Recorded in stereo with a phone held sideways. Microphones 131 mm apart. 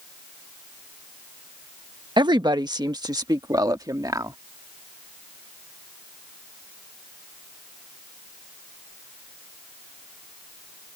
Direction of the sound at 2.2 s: 35° right (ahead or behind).